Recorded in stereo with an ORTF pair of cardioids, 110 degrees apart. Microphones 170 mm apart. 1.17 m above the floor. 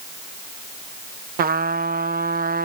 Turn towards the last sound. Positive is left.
turn(degrees=-60)